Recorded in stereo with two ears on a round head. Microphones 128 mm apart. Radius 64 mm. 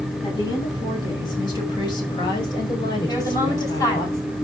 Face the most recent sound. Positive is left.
turn(degrees=25)  # may be behind; listen again after turning